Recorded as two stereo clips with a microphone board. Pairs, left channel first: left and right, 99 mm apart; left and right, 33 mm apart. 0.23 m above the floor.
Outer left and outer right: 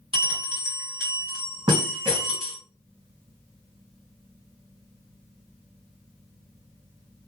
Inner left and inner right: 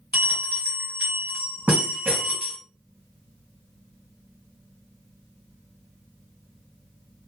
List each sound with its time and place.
0.1 s a bell: 60° right (ahead or behind), 1.9 m